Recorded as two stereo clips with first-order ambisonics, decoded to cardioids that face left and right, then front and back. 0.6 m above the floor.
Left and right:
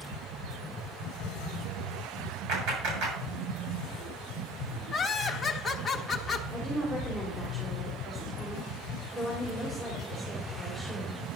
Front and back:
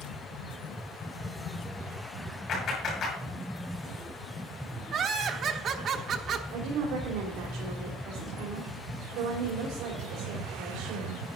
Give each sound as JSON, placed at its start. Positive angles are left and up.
{"t": 2.5, "sound": "a clap", "azimuth_deg": -55, "distance_m": 7.5}
{"t": 4.9, "sound": "laughter", "azimuth_deg": 160, "distance_m": 1.0}
{"t": 6.5, "sound": "a woman speaking", "azimuth_deg": -165, "distance_m": 3.0}